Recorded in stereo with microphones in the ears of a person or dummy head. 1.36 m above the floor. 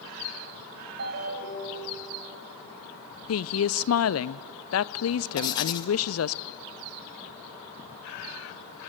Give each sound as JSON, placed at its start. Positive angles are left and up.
{"t": 1.0, "sound": "a ringtone", "side_deg": -60, "distance_m": 5.0}
{"t": 3.3, "sound": "a woman speaking", "side_deg": 70, "distance_m": 0.7}
{"t": 5.4, "sound": "writing", "side_deg": 25, "distance_m": 1.4}